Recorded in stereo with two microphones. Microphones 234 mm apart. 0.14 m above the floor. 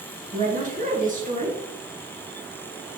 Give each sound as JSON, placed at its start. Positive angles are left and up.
{"t": 0.3, "sound": "a woman speaking", "side_deg": -35, "distance_m": 2.5}